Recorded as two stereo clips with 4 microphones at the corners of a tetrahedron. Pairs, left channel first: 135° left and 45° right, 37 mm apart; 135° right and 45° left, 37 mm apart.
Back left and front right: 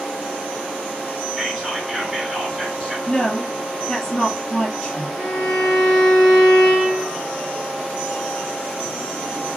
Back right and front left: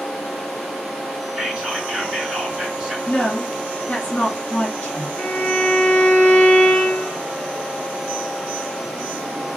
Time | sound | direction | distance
1.4 | whispering | 15° left | 1.8 m
3.1 | a woman speaking | straight behind | 1.9 m
5.2 | a violin | 155° right | 1.7 m